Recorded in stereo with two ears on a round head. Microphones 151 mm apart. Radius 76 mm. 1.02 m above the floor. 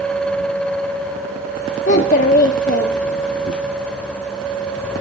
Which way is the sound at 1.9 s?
50° left (ahead or behind).